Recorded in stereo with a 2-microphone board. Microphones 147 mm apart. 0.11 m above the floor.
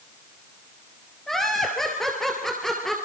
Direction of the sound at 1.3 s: Centre (ahead or behind).